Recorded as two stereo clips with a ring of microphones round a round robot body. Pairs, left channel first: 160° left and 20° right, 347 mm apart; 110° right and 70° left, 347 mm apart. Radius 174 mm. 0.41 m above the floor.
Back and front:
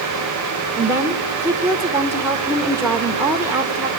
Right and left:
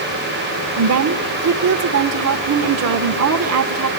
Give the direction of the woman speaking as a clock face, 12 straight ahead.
10 o'clock.